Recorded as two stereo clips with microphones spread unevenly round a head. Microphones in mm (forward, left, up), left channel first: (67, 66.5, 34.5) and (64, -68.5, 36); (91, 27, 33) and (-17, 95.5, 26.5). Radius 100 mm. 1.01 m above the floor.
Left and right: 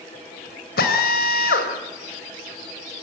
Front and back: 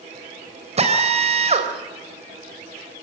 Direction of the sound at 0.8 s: 110° left.